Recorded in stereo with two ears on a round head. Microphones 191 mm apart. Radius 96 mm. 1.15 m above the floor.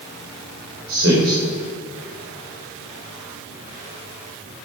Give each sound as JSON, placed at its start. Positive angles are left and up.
{"t": 0.9, "sound": "a man speaking", "side_deg": -60, "distance_m": 3.5}